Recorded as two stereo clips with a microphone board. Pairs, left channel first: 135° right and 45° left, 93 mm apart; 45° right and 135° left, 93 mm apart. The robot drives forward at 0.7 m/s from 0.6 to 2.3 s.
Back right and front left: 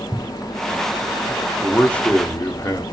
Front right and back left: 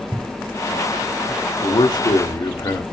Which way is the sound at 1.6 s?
50° right.